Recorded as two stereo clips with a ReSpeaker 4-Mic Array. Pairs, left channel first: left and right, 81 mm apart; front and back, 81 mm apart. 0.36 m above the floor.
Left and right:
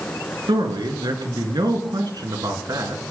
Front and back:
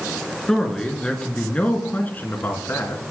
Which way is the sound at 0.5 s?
85° right.